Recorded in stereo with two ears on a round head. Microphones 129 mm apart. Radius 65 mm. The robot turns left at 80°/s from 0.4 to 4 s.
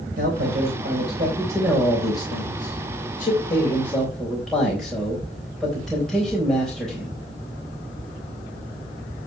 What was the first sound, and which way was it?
A man speaking, 65° right (ahead or behind).